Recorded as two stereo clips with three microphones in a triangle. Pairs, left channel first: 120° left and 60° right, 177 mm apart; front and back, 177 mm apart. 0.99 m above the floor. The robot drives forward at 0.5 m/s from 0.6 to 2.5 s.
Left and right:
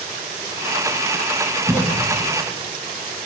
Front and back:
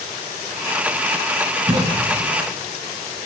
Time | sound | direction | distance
1.7 | a cough | 130° right | 1.6 m